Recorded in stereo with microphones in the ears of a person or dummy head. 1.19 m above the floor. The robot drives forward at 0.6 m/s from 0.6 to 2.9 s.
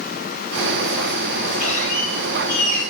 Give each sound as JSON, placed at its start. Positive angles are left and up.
{"t": 1.6, "sound": "a squeak", "side_deg": 45, "distance_m": 2.5}